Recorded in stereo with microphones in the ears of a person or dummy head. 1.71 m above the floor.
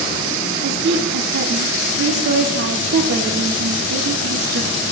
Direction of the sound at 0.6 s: 60° right (ahead or behind).